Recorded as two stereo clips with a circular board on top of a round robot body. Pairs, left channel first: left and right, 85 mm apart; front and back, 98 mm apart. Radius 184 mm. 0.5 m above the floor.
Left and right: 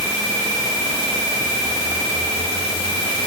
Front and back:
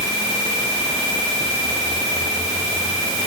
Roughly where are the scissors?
I don't hear scissors.